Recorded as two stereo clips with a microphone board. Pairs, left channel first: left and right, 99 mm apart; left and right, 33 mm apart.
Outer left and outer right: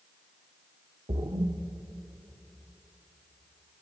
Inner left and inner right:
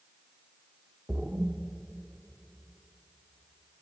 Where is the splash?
80° right, 0.8 m.